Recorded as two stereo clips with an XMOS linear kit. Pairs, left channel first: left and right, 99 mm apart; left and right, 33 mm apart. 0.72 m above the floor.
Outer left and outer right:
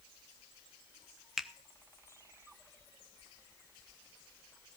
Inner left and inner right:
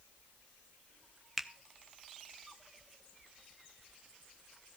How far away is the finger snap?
About 0.7 m.